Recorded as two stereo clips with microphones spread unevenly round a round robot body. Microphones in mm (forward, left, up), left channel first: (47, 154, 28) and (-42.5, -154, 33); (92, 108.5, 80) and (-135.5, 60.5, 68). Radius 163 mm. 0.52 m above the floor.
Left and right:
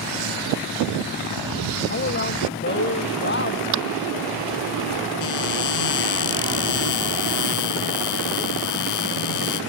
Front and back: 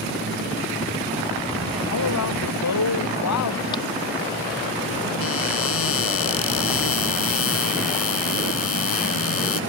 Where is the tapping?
65° right.